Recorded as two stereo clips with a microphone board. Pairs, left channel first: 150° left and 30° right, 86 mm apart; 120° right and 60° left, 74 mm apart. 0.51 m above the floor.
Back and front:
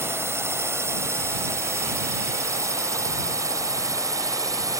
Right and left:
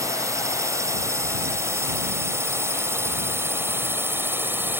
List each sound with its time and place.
0.0 s a drone: 25° left; by 4.8 s 5° left